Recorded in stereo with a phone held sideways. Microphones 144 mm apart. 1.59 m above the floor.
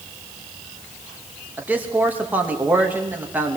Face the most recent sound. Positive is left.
turn(degrees=-10)  # may be behind; listen again after turning